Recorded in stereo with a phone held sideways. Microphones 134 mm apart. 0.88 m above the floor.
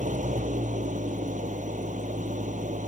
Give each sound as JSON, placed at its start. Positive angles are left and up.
{"t": 0.0, "sound": "an engine running", "side_deg": -65}